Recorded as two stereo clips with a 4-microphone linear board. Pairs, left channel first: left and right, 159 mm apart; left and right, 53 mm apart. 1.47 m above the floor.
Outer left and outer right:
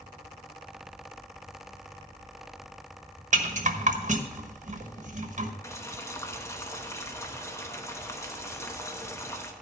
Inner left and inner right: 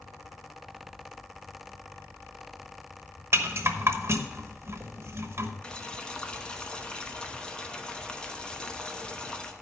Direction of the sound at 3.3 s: 50° right (ahead or behind).